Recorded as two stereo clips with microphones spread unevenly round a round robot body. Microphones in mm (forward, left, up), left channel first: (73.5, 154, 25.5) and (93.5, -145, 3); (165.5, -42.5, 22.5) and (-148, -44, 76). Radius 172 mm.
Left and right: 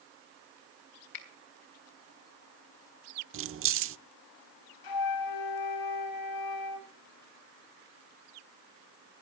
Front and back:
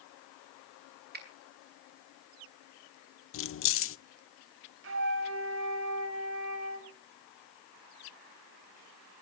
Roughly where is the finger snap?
Behind left.